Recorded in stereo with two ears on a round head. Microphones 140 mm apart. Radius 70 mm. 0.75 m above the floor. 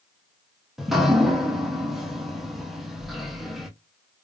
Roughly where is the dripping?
Centre.